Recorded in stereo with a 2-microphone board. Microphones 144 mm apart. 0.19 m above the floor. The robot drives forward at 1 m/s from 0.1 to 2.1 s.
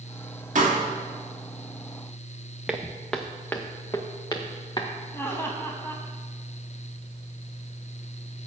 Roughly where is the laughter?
Centre.